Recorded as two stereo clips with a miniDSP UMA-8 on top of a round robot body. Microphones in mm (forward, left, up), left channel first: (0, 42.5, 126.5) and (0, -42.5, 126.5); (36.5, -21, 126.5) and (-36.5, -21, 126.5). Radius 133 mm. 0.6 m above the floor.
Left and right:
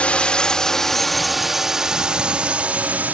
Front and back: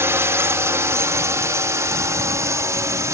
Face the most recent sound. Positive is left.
turn(degrees=-155)